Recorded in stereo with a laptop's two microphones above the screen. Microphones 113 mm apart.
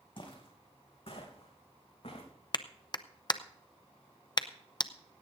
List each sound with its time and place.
0.2 s footsteps: 50° left (ahead or behind), 3.5 m; by 2.3 s 65° left (ahead or behind), 4.5 m
2.5 s a clap: 40° left (ahead or behind), 0.7 m